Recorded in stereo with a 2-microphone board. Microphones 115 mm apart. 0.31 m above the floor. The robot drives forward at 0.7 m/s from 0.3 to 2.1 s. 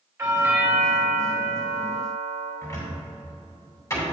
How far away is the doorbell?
About 1.7 m.